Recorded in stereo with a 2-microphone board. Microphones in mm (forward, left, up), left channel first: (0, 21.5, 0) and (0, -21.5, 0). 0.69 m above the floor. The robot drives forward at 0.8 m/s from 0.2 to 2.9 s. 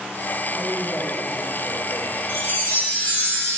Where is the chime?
60° left (ahead or behind), 5 m; by 3.6 s 55° left (ahead or behind), 5 m.